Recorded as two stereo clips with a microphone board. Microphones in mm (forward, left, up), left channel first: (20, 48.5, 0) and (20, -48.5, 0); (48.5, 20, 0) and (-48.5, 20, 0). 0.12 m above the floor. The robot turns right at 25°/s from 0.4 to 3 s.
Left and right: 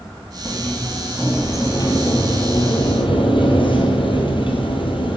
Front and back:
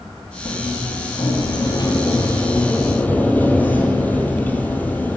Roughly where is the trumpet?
No trumpet in this recording.